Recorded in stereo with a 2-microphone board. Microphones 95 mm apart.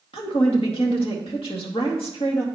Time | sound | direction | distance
0.1 | a woman speaking | 80° left | 2.0 m